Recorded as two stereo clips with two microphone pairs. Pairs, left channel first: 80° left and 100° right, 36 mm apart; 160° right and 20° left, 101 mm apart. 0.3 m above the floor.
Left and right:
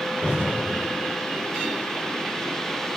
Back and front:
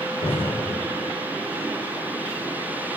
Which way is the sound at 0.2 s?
145° right.